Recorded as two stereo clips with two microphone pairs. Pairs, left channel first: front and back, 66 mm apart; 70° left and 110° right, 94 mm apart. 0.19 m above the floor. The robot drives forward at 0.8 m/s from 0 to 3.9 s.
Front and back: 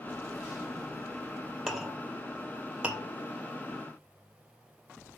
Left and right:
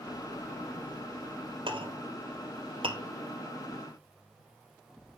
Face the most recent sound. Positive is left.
turn(degrees=-125)